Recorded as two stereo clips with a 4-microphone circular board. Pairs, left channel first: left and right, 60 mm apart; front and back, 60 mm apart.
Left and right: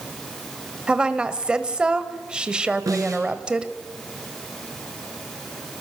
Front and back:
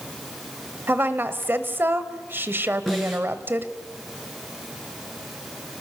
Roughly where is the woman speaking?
Behind right.